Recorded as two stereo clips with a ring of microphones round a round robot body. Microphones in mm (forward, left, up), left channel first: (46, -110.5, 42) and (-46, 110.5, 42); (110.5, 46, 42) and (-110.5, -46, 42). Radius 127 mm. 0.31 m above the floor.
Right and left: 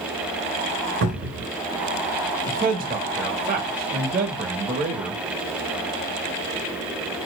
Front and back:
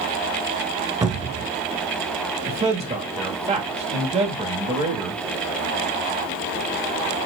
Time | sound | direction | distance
1.0 | a cupboard door | 130° left | 1.0 m
2.5 | a man speaking | 150° left | 1.2 m